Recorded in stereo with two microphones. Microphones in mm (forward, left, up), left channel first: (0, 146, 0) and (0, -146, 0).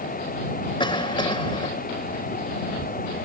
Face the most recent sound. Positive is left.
turn(degrees=15)  # may be behind; listen again after turning